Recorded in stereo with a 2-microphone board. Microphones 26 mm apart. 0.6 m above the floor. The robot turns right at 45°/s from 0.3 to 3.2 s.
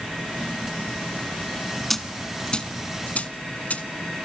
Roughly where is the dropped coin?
Centre.